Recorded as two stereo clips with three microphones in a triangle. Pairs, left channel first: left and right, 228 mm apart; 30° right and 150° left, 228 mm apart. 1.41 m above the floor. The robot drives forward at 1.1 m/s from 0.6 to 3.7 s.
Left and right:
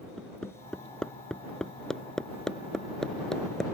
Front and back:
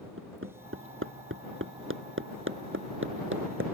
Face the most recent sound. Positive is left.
turn(degrees=180)